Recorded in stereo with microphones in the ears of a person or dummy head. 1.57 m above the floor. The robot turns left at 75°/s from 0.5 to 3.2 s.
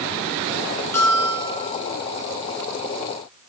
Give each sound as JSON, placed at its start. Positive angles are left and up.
{"t": 0.9, "sound": "a bell", "azimuth_deg": 165, "distance_m": 4.0}